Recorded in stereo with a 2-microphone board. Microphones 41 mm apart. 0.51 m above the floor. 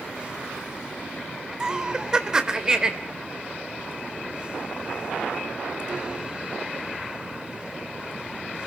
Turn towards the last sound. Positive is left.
turn(degrees=-15)  # may be behind; listen again after turning